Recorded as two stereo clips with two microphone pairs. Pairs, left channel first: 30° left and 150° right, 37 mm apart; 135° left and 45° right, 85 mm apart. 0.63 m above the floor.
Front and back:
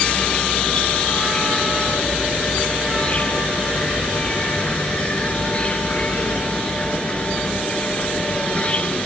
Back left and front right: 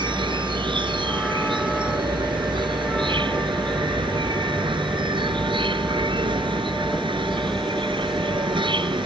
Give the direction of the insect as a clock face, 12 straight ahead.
1 o'clock.